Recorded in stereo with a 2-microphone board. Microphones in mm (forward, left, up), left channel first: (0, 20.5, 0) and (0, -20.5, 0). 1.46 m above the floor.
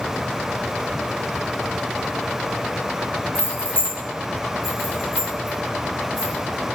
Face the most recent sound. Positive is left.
turn(degrees=60)  # may be behind; listen again after turning